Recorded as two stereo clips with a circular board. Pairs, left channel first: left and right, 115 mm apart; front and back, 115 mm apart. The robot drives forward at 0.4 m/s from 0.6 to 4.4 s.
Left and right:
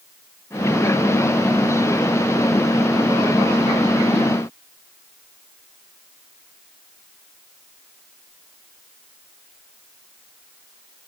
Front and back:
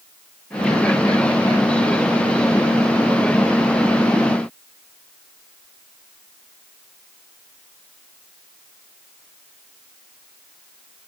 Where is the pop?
I don't hear a pop.